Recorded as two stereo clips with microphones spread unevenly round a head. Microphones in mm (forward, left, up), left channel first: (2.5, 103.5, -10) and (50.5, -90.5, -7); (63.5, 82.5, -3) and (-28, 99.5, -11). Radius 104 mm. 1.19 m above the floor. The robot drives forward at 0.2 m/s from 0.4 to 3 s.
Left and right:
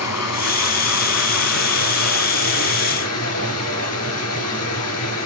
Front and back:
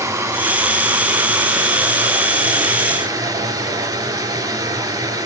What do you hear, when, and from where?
0.0 s running water: 115° left, 2.5 m; by 5.3 s 125° left, 3 m